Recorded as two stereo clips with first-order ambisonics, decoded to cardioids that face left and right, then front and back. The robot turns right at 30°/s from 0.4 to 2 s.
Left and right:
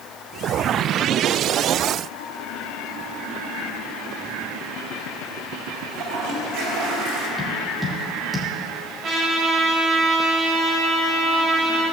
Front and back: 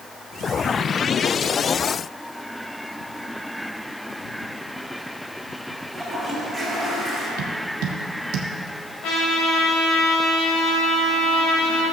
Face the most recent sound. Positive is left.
turn(degrees=-25)